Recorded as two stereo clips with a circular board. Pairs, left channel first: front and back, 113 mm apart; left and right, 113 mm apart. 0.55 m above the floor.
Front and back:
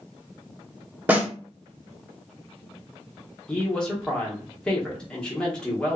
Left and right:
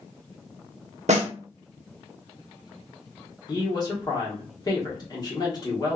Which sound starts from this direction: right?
A snare drum, at 1.1 s.